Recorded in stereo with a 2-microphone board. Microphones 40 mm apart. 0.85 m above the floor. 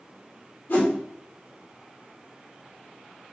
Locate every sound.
0.7 s a whoosh: 65° left (ahead or behind), 2 m